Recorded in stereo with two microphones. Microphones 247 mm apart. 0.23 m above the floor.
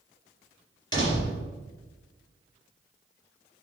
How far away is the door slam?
About 3.5 m.